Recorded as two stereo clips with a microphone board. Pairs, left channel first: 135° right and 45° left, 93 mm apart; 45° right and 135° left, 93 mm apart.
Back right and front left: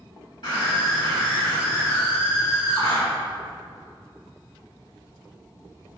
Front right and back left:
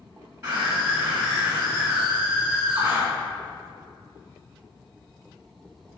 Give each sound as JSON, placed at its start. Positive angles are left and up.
{"t": 0.4, "sound": "a scream", "azimuth_deg": -160, "distance_m": 2.5}